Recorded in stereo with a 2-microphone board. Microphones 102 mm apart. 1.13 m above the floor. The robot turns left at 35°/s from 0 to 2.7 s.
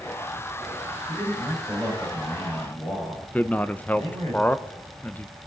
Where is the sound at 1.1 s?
165° right, 5.5 m; by 4.3 s 140° left, 5.5 m.